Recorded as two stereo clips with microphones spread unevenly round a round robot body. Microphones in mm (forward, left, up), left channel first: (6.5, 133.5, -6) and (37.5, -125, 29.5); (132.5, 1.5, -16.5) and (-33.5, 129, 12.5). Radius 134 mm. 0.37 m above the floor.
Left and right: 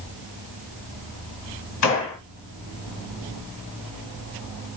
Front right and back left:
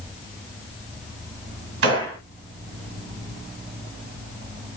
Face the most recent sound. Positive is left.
turn(degrees=125)